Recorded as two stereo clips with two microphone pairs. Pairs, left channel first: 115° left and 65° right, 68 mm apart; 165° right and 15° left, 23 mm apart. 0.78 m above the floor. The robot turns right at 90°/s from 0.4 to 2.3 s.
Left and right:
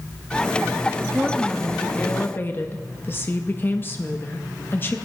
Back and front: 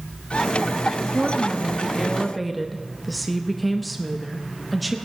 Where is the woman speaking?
5° left, 0.7 m; by 5.0 s 110° left, 0.7 m.